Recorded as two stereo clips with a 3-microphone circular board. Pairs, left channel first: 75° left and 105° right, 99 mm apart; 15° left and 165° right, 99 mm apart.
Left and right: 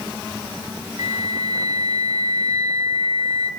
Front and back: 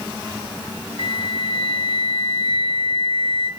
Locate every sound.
1.0 s a flute: 145° right, 3.5 m